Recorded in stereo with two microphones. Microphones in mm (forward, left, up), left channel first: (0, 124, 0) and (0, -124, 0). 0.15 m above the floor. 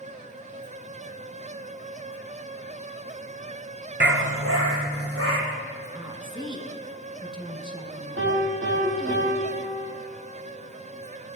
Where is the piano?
55° right (ahead or behind), 4 m.